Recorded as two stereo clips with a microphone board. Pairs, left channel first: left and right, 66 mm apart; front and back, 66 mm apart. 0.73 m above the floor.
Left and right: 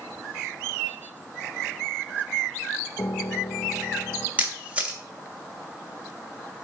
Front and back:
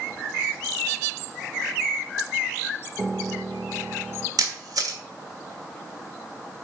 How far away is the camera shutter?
About 1.4 m.